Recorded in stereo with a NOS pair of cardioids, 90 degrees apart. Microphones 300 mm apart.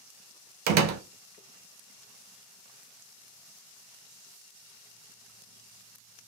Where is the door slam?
70° right, 0.8 m.